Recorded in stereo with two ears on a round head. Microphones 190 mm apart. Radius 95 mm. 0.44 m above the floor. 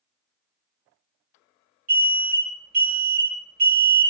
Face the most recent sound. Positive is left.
turn(degrees=-40)  # may be behind; listen again after turning